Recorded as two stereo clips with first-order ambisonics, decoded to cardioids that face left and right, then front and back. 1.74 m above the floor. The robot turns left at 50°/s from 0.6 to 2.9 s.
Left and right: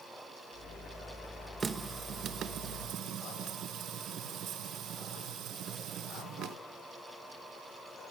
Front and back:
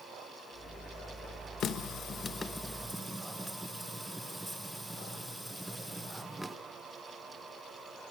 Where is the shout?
No shout in this recording.